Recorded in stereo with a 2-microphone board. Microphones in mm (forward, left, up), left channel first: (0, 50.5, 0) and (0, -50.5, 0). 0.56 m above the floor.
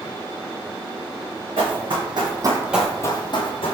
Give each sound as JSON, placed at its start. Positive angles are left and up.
{"t": 1.6, "sound": "running footsteps", "side_deg": -65, "distance_m": 2.0}